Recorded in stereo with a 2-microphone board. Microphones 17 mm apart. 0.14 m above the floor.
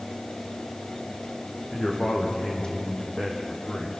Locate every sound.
1.7 s a man speaking: 75° left (ahead or behind), 6.5 m; by 4.0 s 70° left (ahead or behind), 5 m